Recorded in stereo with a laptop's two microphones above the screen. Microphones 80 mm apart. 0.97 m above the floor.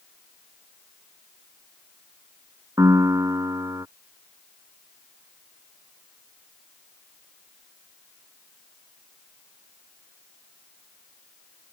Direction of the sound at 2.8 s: 40° right (ahead or behind).